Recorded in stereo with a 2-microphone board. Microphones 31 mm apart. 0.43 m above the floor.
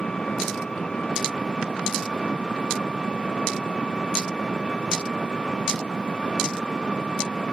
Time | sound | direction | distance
0.0 | an engine running | 20° left (ahead or behind) | ?